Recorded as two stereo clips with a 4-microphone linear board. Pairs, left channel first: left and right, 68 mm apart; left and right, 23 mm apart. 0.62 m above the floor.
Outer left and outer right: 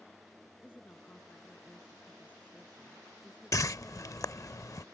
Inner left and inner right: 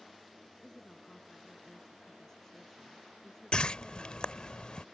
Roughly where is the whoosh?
Left.